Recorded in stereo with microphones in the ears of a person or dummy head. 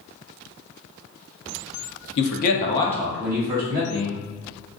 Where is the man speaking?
60° left (ahead or behind), 0.6 m; by 4.2 s 30° right (ahead or behind), 1.2 m.